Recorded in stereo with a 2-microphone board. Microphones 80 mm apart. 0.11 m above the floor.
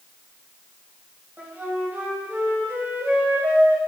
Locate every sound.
1.4 s a flute: 25° right (ahead or behind), 4.5 m